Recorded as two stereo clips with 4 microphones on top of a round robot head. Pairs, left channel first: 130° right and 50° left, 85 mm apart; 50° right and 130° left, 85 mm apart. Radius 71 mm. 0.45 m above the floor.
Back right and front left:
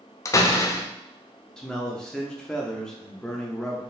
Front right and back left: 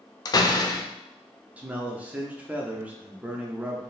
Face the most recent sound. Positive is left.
turn(degrees=165)